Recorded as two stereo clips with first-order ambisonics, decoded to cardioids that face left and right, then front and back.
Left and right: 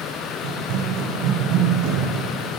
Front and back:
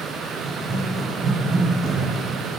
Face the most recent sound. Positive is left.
turn(degrees=-135)